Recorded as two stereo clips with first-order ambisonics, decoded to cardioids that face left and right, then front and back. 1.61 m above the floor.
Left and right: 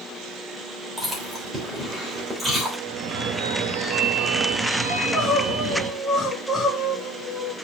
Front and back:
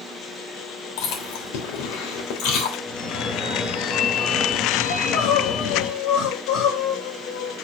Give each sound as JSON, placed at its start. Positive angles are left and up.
{"t": 1.0, "sound": "chewing", "azimuth_deg": -10, "distance_m": 3.0}
{"t": 2.9, "sound": "a phone ringing", "azimuth_deg": -45, "distance_m": 1.5}
{"t": 4.9, "sound": "crying", "azimuth_deg": 5, "distance_m": 2.5}